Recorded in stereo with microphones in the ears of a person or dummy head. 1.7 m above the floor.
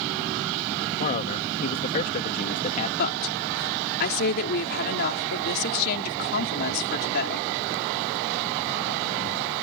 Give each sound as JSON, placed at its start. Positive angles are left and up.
{"t": 1.0, "sound": "a man speaking", "side_deg": 40}
{"t": 3.0, "sound": "a woman speaking", "side_deg": 55}